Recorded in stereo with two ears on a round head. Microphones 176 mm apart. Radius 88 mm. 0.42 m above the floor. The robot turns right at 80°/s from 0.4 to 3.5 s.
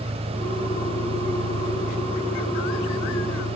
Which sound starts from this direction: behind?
An engine running, at 0.0 s.